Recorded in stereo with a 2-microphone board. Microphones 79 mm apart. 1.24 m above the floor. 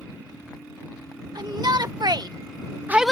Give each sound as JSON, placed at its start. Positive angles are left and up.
{"t": 1.4, "sound": "a shout", "side_deg": -60}